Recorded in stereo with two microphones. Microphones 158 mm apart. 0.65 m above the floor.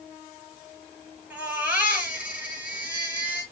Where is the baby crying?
10° right (ahead or behind), 7 m.